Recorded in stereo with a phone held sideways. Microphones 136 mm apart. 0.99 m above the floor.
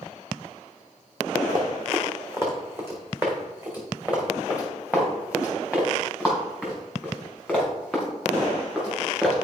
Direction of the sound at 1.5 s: 25° right (ahead or behind).